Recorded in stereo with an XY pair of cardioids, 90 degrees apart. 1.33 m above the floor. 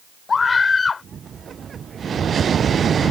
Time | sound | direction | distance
0.3 | a scream | 40° left | ?